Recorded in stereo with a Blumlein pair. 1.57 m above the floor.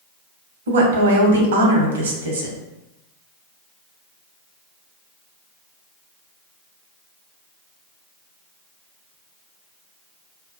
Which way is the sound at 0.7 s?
65° right.